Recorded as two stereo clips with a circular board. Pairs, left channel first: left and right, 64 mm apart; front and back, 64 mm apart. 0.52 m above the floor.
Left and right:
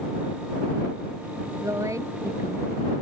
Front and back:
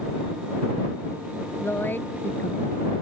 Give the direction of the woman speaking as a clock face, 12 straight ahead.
2 o'clock.